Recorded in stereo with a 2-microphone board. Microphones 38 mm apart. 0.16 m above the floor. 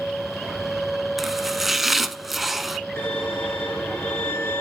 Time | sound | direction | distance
1.2 | chopping | 5° right (ahead or behind) | 0.8 m
3.0 | a violin | 80° left | 4.5 m